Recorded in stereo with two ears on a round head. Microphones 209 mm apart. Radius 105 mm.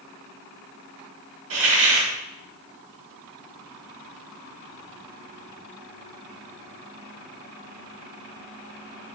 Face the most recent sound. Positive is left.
turn(degrees=-70)  # may be behind; listen again after turning